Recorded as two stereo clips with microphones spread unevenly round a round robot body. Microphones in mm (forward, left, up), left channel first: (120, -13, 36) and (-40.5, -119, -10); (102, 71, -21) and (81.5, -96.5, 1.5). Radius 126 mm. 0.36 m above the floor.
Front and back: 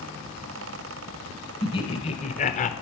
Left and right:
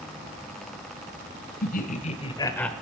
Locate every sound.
1.6 s laughter: 110° left, 1.8 m; by 2.7 s 15° left, 1.0 m